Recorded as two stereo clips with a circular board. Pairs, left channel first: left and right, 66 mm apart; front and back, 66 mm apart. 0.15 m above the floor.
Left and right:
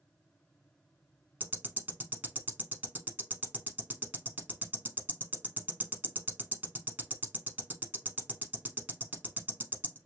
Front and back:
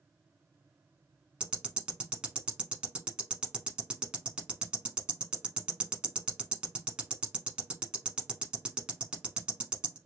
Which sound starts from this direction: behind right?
Ticking, at 1.4 s.